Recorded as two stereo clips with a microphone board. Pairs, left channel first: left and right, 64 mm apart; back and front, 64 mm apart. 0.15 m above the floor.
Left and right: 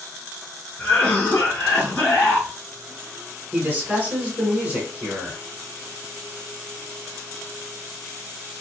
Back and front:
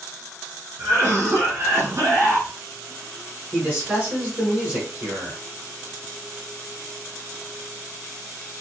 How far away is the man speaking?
About 1.3 m.